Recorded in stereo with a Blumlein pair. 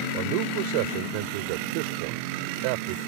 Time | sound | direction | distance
0.1 | a man speaking | 45° right | ?